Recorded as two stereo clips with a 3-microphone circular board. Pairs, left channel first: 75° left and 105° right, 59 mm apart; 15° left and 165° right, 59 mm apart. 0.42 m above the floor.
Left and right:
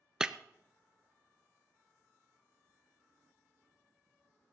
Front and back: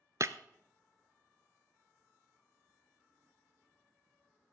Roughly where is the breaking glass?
Behind.